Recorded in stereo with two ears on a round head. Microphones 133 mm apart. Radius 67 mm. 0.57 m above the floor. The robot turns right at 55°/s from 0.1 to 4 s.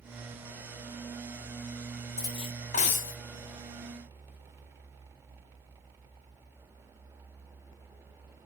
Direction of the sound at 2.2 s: 25° left.